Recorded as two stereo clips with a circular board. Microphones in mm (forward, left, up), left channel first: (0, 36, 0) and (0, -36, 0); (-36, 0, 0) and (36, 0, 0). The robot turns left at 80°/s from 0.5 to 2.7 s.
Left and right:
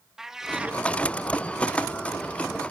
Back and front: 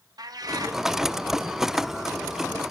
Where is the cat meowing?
10° right, 0.8 m; by 0.8 s 35° right, 0.8 m.